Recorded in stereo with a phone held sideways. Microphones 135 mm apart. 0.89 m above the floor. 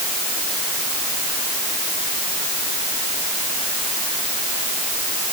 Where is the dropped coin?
No dropped coin in this recording.